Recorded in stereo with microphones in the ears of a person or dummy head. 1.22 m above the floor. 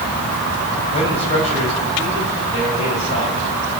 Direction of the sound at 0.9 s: 35° left (ahead or behind).